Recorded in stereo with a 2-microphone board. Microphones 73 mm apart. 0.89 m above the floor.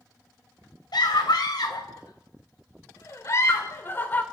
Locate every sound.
0.9 s a scream: 75° left (ahead or behind), 4 m; by 4.2 s 25° left (ahead or behind), 2.5 m